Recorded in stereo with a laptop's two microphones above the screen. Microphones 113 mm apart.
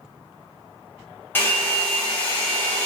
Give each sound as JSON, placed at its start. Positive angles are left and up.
{"t": 1.4, "sound": "a hair dryer", "side_deg": 20, "distance_m": 0.8}